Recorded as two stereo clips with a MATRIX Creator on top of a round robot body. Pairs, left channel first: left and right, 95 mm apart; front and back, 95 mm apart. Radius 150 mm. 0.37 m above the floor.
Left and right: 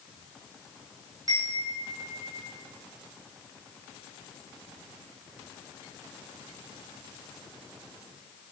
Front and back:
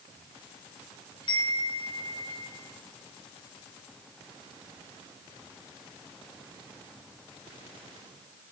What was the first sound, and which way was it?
A chime, 35° right.